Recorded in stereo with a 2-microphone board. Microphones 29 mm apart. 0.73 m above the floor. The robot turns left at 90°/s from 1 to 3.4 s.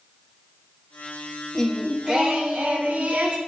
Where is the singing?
20° left, 1.0 m; by 3.4 s 145° right, 1.0 m.